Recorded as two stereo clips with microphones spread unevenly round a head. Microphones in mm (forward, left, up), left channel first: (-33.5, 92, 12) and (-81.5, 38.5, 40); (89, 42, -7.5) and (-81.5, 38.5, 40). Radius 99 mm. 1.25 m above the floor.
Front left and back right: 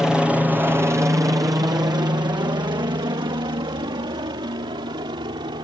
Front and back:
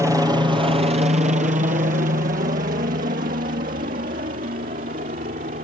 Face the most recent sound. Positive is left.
turn(degrees=-125)